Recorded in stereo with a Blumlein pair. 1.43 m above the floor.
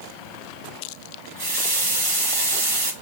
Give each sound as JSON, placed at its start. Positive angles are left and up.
{"t": 1.4, "sound": "a running tap", "azimuth_deg": -50, "distance_m": 1.2}